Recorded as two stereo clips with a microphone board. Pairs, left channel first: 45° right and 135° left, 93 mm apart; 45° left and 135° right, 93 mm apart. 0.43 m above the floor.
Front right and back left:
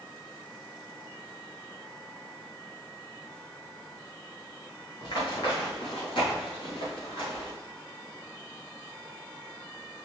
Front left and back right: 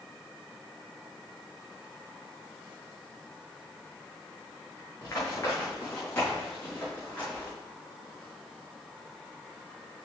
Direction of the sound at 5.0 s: 15° right.